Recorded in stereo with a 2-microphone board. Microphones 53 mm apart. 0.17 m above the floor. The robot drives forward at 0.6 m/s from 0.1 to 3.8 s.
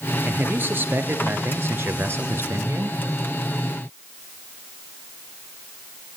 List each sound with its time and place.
0.2 s a man speaking: 35° right (ahead or behind), 3 m; by 3.0 s 55° right (ahead or behind), 2.5 m